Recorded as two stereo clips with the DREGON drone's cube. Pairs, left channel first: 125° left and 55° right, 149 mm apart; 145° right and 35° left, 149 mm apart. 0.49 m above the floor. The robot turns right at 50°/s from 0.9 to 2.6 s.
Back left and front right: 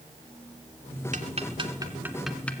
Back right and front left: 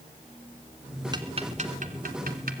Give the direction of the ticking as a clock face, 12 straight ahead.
1 o'clock.